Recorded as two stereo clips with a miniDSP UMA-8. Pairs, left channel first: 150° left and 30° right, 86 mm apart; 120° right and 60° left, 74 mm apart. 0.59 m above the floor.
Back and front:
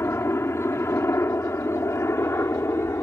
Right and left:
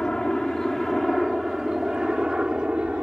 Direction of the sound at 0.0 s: 165° left.